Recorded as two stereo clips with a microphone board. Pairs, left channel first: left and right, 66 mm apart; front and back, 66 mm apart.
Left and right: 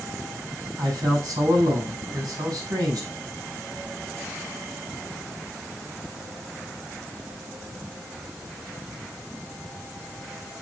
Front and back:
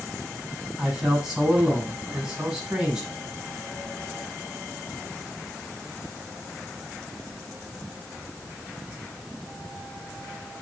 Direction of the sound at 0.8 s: 100° right.